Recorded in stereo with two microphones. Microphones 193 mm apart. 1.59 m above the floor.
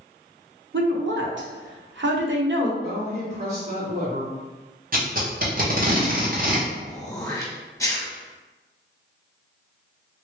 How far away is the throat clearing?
About 1.0 m.